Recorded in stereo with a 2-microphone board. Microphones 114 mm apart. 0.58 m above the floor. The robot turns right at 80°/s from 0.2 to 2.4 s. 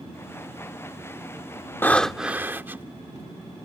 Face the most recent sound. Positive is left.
turn(degrees=-160)